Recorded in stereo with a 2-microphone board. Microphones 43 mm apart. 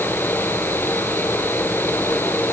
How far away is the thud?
I don't hear a thud.